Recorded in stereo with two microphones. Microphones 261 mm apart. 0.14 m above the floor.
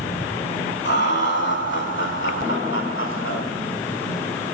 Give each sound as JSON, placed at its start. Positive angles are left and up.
{"t": 0.8, "sound": "laughter", "side_deg": 45, "distance_m": 6.5}